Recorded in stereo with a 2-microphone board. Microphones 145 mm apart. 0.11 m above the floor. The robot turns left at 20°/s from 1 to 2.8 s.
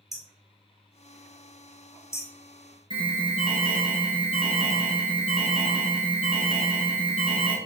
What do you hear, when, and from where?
0.1 s hammering: centre (ahead or behind), 0.6 m; by 2.3 s 20° left (ahead or behind), 0.6 m
2.9 s an alarm: 35° left (ahead or behind), 1.3 m